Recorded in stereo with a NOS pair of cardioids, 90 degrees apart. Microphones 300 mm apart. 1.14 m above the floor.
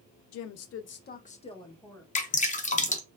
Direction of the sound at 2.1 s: 25° left.